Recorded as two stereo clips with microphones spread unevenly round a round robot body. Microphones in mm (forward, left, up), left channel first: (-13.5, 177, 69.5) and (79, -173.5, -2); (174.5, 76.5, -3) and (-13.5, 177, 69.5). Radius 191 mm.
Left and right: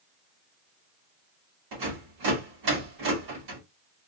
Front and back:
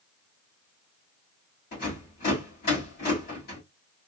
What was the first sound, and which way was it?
A rattle, 65° right.